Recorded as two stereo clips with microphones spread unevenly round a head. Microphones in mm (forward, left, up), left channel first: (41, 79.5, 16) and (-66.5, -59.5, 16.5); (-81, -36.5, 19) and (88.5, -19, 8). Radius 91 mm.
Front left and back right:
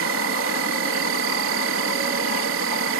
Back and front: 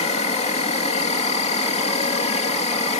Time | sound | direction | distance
0.0 | an insect | 120° right | ?